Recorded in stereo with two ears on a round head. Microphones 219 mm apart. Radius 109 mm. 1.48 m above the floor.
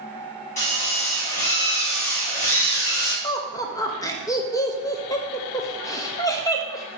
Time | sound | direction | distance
0.6 | a drill | 30° left (ahead or behind) | 2.5 m
3.2 | laughter | 15° left (ahead or behind) | 0.8 m